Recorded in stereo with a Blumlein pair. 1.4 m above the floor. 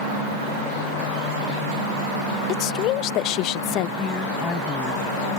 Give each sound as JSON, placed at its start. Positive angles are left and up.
{"t": 2.5, "sound": "a woman speaking", "azimuth_deg": 35}
{"t": 4.0, "sound": "a woman speaking", "azimuth_deg": 15}